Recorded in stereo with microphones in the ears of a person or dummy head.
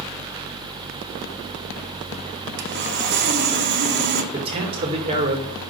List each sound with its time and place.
2.6 s sawing: 50° right (ahead or behind), 1.1 m
4.3 s a man speaking: 30° right (ahead or behind), 1.8 m